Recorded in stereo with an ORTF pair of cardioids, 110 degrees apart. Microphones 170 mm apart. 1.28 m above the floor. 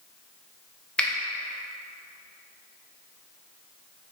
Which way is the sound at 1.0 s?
5° left.